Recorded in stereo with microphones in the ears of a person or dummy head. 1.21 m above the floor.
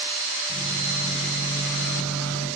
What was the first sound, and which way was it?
A microwave, 85° left.